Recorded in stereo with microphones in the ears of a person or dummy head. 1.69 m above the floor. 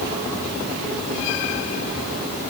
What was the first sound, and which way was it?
Only background noise.